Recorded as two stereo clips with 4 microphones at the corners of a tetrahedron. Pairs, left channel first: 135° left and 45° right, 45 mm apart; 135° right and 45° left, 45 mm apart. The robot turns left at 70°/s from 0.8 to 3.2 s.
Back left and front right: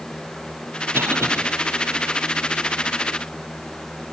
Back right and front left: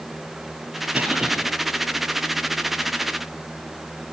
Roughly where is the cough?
Ahead.